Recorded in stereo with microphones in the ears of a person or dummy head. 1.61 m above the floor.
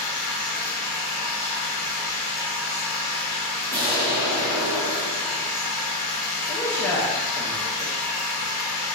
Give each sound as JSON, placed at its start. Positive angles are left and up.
{"t": 0.0, "sound": "a machine running", "side_deg": 15, "distance_m": 0.8}
{"t": 3.7, "sound": "an explosion", "side_deg": -25, "distance_m": 1.1}
{"t": 6.5, "sound": "a man speaking", "side_deg": 15, "distance_m": 0.6}